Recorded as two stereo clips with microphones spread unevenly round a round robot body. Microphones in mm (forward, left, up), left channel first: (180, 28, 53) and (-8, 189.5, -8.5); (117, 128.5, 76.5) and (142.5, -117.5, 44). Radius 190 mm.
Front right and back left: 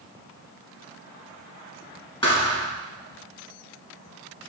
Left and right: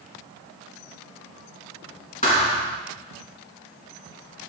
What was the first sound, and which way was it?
A thud, 35° left.